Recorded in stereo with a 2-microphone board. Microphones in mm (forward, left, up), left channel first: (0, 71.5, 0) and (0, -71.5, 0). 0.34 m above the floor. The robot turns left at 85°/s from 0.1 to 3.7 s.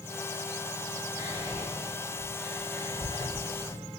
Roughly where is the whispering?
Right.